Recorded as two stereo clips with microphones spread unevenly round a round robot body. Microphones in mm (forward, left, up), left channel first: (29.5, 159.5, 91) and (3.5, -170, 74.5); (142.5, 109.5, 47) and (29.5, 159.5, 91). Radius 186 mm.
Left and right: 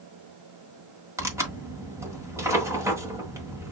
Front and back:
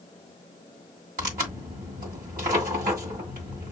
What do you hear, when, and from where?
1.2 s tearing paper: 175° right, 1.5 m